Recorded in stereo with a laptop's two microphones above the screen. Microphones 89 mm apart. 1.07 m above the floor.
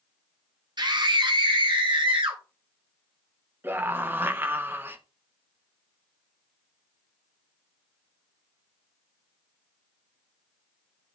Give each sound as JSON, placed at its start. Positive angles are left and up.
{"t": 0.8, "sound": "a scream", "side_deg": -55, "distance_m": 0.9}
{"t": 3.6, "sound": "a scream", "side_deg": -25, "distance_m": 1.1}